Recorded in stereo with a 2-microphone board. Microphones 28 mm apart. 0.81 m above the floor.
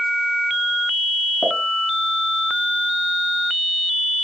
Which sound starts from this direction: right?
A pop, at 1.4 s.